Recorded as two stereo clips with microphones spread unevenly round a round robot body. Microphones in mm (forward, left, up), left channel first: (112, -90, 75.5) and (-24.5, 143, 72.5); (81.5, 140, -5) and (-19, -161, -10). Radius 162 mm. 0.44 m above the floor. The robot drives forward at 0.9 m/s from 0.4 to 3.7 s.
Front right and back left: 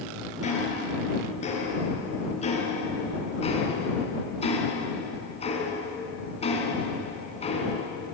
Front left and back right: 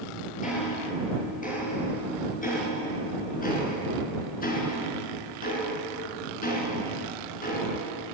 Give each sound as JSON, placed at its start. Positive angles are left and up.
{"t": 0.4, "sound": "ticking", "azimuth_deg": 5, "distance_m": 7.5}